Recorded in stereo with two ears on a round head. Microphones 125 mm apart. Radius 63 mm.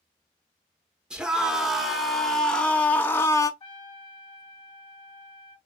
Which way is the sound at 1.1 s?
5° right (ahead or behind).